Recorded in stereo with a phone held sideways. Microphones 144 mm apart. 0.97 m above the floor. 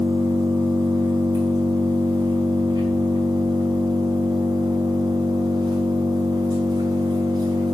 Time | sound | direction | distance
0.0 | an engine running | 30° right (ahead or behind) | 5.5 m